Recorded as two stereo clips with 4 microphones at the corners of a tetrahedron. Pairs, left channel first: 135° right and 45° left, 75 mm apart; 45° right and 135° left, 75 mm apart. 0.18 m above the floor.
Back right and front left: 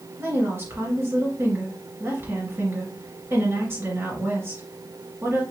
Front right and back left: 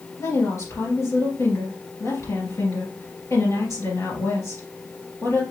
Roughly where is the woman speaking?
Ahead.